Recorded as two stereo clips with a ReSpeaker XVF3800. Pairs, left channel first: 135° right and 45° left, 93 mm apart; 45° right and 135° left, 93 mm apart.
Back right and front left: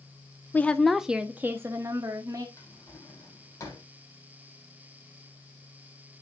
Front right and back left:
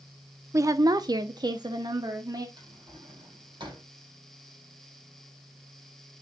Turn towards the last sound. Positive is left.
turn(degrees=170)